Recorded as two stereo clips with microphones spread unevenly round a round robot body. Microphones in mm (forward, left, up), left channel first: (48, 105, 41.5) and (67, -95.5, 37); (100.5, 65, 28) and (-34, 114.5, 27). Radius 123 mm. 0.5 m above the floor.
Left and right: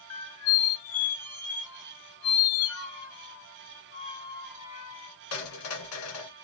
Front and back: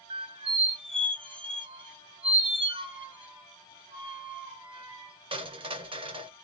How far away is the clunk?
No clunk in this recording.